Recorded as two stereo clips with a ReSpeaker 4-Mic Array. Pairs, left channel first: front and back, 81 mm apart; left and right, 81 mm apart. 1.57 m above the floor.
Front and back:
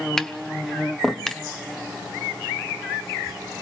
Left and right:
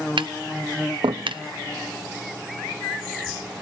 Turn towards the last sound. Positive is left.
turn(degrees=-80)